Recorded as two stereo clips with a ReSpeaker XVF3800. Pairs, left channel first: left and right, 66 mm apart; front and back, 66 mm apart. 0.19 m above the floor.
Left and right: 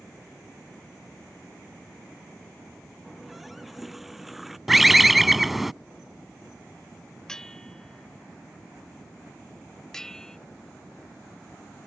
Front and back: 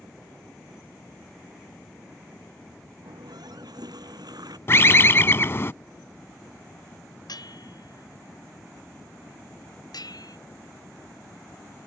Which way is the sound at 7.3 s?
10° left.